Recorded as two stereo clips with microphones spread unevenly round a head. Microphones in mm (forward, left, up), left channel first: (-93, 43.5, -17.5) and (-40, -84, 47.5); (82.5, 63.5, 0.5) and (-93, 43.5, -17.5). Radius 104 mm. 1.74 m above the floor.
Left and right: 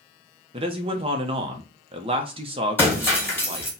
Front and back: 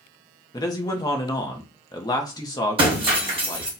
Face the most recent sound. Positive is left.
turn(degrees=-135)